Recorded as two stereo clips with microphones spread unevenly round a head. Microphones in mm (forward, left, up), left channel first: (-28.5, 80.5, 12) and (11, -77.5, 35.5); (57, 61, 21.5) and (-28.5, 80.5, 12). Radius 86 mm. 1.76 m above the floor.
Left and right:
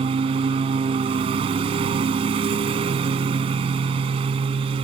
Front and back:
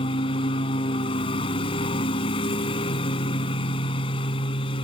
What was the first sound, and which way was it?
A lawn mower, 20° right.